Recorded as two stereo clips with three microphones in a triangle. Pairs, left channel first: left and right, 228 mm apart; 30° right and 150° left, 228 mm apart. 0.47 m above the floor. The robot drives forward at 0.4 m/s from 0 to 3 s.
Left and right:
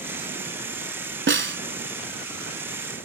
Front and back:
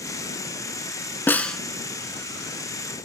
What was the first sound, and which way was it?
A snare drum, 110° right.